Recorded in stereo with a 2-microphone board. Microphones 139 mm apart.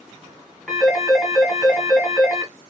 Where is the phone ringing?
5° left (ahead or behind), 2.5 m.